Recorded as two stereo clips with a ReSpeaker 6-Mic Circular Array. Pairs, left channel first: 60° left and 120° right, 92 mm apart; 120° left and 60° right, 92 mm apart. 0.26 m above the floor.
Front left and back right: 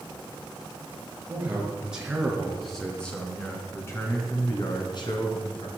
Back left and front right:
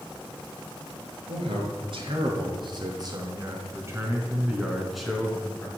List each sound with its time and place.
1.3 s a man speaking: 45° right, 4.5 m; by 5.7 s 45° left, 3.5 m